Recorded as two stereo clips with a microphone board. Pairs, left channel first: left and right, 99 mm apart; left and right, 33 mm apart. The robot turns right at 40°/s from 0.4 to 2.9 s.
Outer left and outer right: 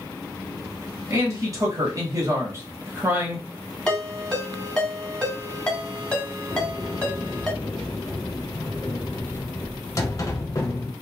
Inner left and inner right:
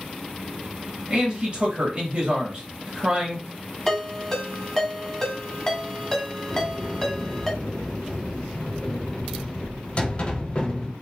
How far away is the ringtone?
About 1.4 m.